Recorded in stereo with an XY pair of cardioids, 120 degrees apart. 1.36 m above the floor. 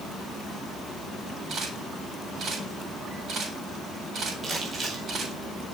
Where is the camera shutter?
50° right, 7 m.